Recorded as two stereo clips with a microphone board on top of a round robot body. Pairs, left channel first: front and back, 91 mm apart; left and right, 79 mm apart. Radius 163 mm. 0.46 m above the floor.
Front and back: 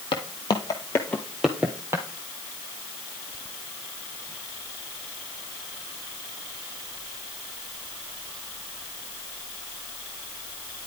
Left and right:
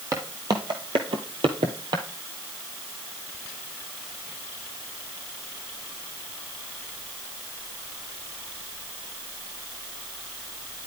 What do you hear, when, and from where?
0.1 s footsteps: 35° right, 1.1 m; by 2.0 s 120° right, 1.0 m